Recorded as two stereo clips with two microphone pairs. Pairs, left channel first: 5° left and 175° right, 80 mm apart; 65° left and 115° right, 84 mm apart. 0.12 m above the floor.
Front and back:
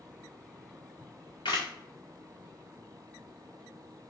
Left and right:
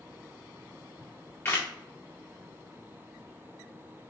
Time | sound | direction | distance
1.0 | a camera shutter | 5° left | 1.6 m